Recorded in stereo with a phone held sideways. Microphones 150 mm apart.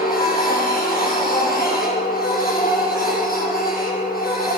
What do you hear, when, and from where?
0.0 s a machine running: 80° left, 7.5 m